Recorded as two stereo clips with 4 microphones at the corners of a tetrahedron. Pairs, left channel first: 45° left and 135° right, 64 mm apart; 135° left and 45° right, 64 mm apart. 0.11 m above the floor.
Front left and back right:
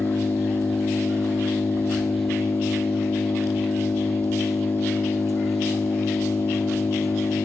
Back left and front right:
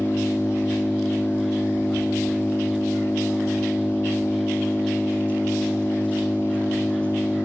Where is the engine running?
65° left, 2.5 m.